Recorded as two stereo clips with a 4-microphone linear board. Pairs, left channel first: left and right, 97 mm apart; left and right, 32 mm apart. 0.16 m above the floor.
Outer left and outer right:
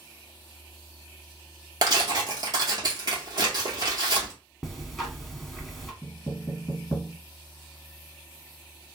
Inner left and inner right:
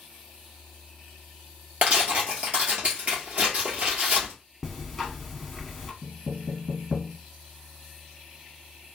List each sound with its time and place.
1.8 s tearing paper: 45° right (ahead or behind), 1.9 m
4.6 s ticking: centre (ahead or behind), 1.1 m
6.0 s knocking: 40° left (ahead or behind), 1.8 m